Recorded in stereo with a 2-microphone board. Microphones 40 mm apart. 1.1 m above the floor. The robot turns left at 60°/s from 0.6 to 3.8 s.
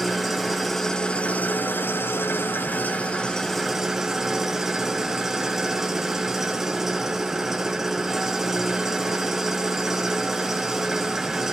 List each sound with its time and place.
0.0 s an engine running: straight behind, 1.1 m; by 11.5 s 10° right, 1.1 m